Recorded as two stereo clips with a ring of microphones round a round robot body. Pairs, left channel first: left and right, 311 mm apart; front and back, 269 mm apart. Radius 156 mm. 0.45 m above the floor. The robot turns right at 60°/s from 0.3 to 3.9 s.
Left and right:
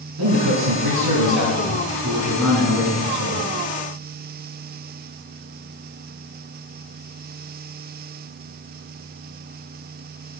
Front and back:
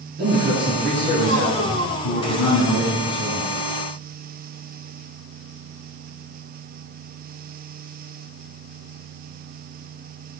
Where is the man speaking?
125° right, 4.5 m; by 3.5 s 65° left, 4.5 m.